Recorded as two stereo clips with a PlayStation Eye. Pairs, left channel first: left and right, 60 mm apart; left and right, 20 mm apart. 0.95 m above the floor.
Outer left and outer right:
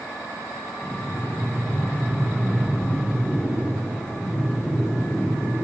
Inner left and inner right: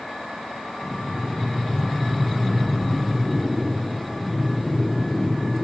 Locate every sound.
0.8 s breathing: 75° left (ahead or behind), 2.5 m